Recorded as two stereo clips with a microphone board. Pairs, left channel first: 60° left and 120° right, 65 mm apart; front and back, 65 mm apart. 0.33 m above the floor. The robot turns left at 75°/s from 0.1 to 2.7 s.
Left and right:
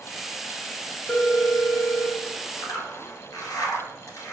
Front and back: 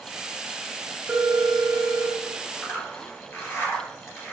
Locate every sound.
1.1 s a phone ringing: 110° left, 0.7 m; by 2.2 s 30° left, 0.7 m
2.6 s a zipper: 55° left, 1.3 m; by 4.3 s 50° left, 1.3 m